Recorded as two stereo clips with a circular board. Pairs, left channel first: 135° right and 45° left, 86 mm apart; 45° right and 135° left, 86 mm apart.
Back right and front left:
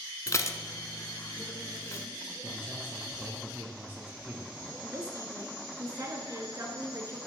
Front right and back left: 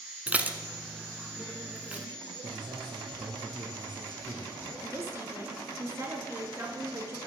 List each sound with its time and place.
0.3 s dishes clattering: 160° right, 0.9 m
2.4 s a man speaking: 110° left, 3 m
4.8 s a woman speaking: 85° left, 2.5 m